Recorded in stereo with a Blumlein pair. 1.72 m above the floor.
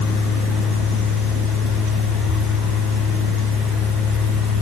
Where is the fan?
25° left, 3 m.